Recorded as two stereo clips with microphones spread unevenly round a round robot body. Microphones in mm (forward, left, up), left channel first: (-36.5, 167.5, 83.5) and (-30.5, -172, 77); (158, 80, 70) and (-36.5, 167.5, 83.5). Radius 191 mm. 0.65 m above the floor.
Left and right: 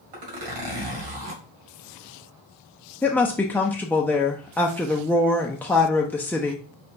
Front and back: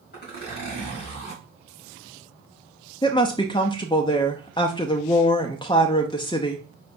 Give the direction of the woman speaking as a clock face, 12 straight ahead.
12 o'clock.